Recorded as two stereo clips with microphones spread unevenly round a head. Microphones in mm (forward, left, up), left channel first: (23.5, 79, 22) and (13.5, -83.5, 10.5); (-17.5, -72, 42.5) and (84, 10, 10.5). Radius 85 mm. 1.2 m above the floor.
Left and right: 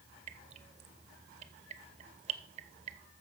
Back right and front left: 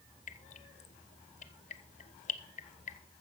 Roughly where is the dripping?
Behind right.